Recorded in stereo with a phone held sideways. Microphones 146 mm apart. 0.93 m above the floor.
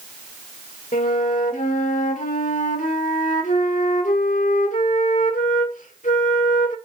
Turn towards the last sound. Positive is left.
turn(degrees=60)  # may be behind; listen again after turning